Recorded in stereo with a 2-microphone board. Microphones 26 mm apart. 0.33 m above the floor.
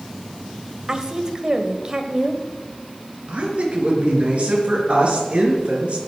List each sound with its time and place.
0.9 s a woman speaking: 25° right (ahead or behind), 1.5 m
3.3 s a woman speaking: 45° right (ahead or behind), 4.5 m